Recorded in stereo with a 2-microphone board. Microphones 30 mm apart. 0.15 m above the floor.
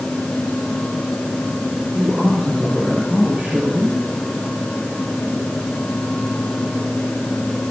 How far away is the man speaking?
About 4.5 m.